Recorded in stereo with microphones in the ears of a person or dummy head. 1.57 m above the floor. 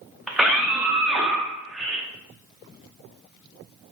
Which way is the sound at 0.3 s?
Centre (ahead or behind).